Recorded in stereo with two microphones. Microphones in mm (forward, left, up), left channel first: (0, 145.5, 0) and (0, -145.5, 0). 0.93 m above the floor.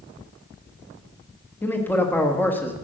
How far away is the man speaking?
About 1.4 m.